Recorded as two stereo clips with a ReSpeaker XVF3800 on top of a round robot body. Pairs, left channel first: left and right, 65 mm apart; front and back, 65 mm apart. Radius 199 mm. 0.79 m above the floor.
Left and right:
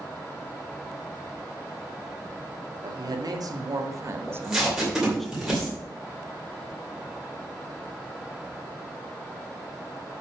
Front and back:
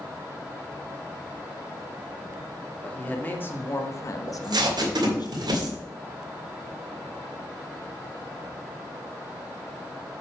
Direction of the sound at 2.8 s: 70° right.